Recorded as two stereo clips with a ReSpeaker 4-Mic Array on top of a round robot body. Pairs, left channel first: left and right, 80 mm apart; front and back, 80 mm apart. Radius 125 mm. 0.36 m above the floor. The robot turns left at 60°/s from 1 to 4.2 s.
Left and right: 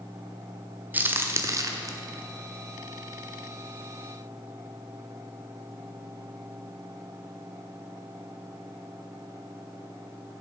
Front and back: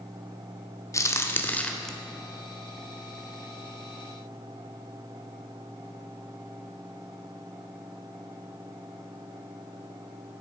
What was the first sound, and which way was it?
A crack, 30° right.